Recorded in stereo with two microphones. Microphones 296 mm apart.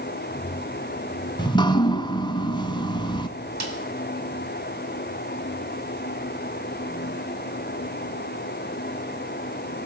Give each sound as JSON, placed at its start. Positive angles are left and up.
{"t": 1.4, "sound": "dripping", "side_deg": 15, "distance_m": 0.7}
{"t": 3.6, "sound": "a snare drum", "side_deg": -65, "distance_m": 2.0}